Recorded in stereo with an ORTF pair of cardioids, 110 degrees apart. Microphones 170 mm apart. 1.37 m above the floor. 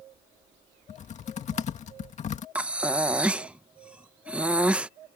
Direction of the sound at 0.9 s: 45° left.